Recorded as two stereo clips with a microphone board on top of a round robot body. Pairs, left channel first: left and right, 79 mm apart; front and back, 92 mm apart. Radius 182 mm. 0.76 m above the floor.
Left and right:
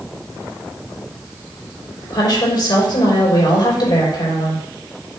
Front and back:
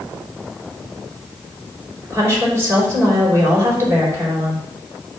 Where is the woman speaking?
120° left, 4 m.